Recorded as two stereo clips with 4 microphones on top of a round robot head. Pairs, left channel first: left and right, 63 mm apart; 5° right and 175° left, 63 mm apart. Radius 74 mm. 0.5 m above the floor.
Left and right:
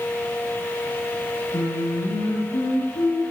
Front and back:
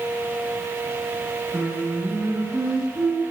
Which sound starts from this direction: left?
Singing, at 1.5 s.